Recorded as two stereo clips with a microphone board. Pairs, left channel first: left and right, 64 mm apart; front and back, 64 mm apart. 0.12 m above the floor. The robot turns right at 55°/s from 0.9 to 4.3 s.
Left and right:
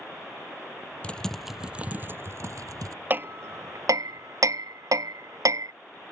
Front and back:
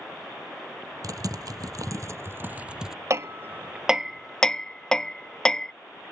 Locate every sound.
1.0 s typing on a keyboard: 160° left; by 3.0 s 95° right
3.1 s hammering: 145° right; by 5.7 s 80° right